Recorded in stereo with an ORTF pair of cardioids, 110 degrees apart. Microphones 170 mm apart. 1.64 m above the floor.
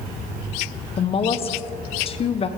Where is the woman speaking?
35° left, 0.9 m.